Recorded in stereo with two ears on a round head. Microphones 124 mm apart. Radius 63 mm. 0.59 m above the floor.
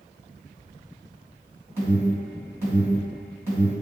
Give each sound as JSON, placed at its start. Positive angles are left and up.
{"t": 1.8, "sound": "an alarm", "side_deg": -20, "distance_m": 2.0}